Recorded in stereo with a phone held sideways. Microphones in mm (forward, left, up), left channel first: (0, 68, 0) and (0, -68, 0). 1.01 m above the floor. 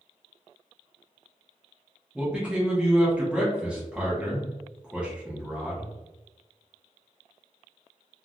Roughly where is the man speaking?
Centre.